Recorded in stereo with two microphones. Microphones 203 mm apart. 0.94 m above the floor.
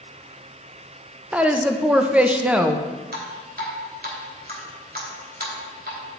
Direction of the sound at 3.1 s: 50° right (ahead or behind).